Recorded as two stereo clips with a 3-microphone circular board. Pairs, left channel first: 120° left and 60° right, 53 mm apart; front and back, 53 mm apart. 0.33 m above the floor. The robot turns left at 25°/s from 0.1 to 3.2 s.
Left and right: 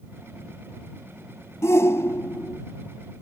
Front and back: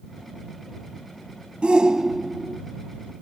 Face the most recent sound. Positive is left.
turn(degrees=75)